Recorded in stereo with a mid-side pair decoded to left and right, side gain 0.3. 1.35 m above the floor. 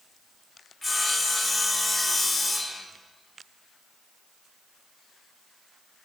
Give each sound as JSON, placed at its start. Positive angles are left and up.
{"t": 0.8, "sound": "sawing", "azimuth_deg": 35, "distance_m": 5.5}